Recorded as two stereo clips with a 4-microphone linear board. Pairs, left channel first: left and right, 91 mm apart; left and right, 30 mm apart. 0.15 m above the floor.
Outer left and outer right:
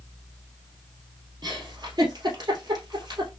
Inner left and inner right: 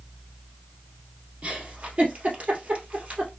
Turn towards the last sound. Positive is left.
turn(degrees=-45)  # may be behind; listen again after turning